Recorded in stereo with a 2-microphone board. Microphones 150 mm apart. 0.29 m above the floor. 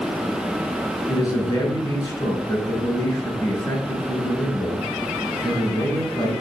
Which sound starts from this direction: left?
A man speaking, at 1.1 s.